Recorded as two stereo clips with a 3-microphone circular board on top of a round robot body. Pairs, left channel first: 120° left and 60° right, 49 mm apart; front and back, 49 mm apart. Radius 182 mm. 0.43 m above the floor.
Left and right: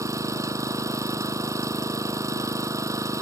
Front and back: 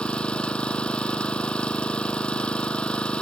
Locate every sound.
0.0 s an engine running: 70° right